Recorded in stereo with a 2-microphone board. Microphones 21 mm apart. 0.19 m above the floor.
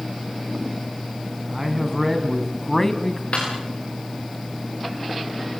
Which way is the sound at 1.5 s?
10° right (ahead or behind).